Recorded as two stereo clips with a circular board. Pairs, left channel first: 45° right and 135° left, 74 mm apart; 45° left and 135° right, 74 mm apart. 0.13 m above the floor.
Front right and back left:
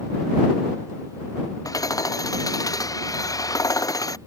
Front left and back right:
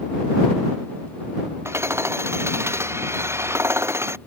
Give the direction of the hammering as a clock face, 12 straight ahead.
3 o'clock.